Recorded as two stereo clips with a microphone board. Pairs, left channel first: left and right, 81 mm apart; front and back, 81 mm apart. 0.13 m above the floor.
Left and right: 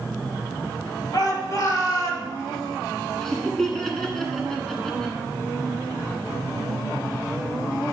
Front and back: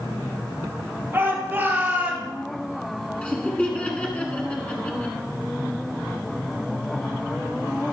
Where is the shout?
125° left, 3 m; by 2.3 s 110° left, 2 m.